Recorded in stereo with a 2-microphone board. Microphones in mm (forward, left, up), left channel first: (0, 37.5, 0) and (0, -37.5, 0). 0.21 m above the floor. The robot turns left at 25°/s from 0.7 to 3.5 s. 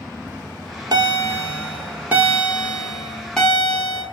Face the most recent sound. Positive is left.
turn(degrees=170)